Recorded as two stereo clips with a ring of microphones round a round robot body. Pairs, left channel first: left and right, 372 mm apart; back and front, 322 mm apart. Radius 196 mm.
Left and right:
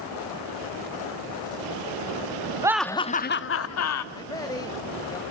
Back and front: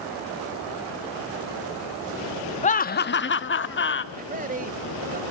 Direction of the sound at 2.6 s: 155° right.